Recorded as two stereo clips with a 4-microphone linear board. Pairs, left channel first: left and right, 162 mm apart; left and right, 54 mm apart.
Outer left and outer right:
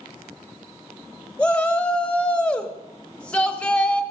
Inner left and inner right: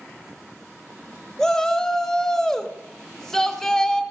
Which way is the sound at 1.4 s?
5° left (ahead or behind).